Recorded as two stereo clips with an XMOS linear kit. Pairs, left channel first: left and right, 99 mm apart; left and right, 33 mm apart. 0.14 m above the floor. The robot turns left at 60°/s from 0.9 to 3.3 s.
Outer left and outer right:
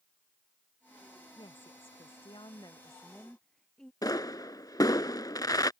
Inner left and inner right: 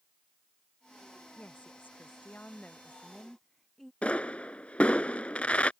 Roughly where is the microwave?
I don't hear a microwave.